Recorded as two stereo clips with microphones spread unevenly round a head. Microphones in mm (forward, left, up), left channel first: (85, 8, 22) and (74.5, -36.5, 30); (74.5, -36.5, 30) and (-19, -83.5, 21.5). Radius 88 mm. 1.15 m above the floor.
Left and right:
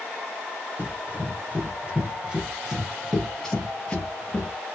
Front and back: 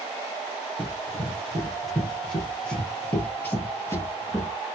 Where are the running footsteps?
65° right, 1.9 m; by 4.5 s 35° left, 1.3 m.